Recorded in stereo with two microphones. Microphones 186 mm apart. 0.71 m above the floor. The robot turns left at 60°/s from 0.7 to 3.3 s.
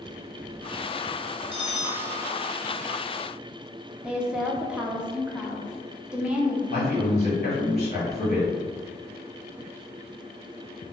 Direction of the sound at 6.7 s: 40° left (ahead or behind).